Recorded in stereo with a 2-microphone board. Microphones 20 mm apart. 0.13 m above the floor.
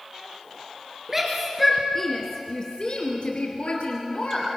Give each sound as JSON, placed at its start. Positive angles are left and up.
{"t": 1.1, "sound": "a shout", "side_deg": -15, "distance_m": 2.5}